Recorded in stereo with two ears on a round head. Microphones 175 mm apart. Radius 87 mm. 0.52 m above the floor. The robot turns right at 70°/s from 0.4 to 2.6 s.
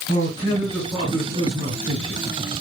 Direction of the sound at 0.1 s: 140° left.